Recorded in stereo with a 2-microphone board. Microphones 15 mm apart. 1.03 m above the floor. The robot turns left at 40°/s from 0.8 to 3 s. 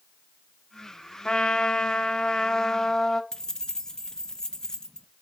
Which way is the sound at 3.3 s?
45° left (ahead or behind).